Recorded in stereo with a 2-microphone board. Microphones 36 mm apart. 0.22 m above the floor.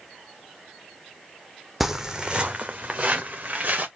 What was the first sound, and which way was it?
Footsteps, 5° right (ahead or behind).